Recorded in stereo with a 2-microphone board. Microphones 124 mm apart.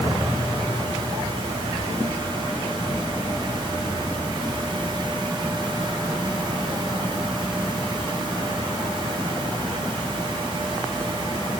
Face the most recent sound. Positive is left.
No sound to turn to.